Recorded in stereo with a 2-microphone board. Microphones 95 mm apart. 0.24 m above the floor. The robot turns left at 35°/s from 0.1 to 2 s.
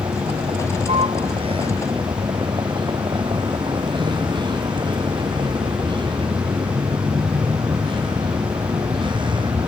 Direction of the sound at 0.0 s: 60° right.